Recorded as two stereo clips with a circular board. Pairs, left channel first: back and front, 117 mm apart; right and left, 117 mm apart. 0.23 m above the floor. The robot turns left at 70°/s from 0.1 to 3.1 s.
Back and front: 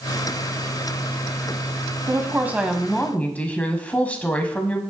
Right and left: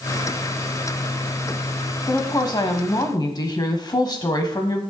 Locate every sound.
2.1 s a woman speaking: 40° right, 1.2 m; by 4.8 s 110° right, 1.2 m